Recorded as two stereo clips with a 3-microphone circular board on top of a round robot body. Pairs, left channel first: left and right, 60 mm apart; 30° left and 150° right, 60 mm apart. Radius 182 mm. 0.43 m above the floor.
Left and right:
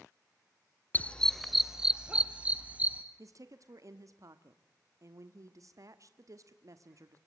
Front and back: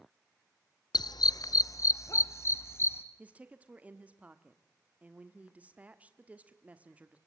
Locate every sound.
0.9 s a dog barking: 25° left, 0.6 m; by 3.0 s 20° right, 1.9 m
3.2 s a woman speaking: 85° right, 1.6 m